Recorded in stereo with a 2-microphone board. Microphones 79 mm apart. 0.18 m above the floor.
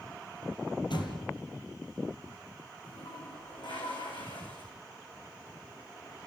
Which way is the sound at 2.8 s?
85° left.